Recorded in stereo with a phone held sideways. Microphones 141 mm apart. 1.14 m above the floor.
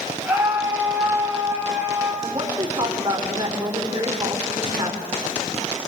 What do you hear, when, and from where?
0.2 s a scream: 10° right (ahead or behind), 7.5 m
2.2 s a woman speaking: 30° right (ahead or behind), 4 m